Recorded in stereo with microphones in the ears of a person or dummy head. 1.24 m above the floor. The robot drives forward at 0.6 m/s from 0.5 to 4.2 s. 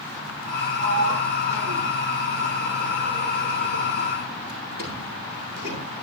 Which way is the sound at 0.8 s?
70° right (ahead or behind).